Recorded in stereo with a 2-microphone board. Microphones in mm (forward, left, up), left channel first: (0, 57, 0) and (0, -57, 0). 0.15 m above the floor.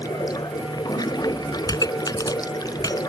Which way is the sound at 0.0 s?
35° left (ahead or behind).